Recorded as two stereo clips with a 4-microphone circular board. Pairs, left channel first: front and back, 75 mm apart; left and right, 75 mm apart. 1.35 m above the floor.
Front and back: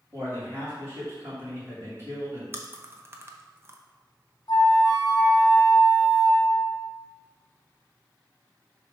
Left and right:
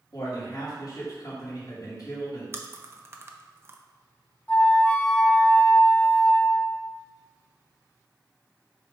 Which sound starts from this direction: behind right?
Chewing, at 2.5 s.